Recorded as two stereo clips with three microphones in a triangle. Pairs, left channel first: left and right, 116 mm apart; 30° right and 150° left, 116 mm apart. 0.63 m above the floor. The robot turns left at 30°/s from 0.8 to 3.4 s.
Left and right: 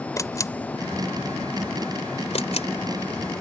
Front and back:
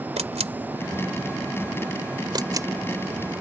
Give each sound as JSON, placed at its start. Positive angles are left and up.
{"t": 0.2, "sound": "a camera shutter", "azimuth_deg": 150}